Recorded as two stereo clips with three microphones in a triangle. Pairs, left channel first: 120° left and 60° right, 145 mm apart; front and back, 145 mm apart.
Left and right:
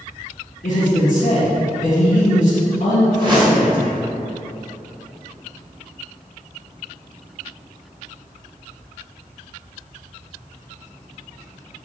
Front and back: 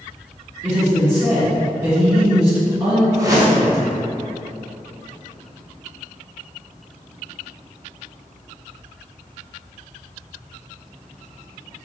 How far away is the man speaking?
About 1.0 m.